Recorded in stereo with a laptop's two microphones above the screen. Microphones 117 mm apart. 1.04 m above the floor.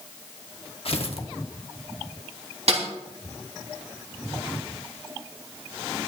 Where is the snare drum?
70° right (ahead or behind), 3.5 m.